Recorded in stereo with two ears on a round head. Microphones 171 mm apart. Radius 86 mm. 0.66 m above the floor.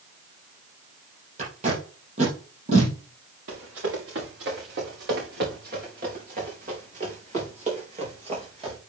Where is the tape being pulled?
40° right (ahead or behind), 3.5 m.